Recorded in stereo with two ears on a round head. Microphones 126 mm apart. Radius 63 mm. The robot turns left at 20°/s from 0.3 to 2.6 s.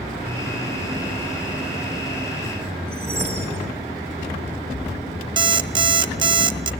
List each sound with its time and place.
2.9 s a whoosh: 20° right (ahead or behind), 3 m
5.4 s an alarm clock: 35° right (ahead or behind), 0.7 m